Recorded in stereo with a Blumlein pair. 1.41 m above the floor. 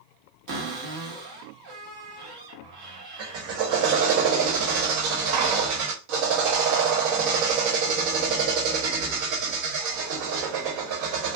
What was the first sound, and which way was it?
A cupboard door, 50° right.